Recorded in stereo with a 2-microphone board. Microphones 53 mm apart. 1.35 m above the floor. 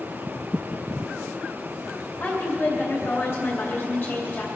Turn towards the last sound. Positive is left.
turn(degrees=45)  # may be behind; listen again after turning